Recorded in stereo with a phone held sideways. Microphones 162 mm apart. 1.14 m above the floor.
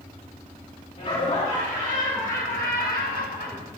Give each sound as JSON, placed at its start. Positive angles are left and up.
{"t": 1.0, "sound": "laughter", "side_deg": 45, "distance_m": 3.0}